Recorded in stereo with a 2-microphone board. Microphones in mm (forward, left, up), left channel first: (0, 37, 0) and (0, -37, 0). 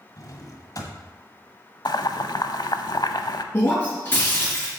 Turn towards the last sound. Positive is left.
turn(degrees=25)  # may be behind; listen again after turning